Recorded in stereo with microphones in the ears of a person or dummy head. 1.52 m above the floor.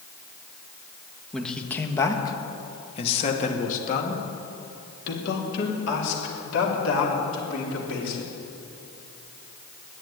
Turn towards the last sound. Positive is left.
turn(degrees=75)  # may be behind; listen again after turning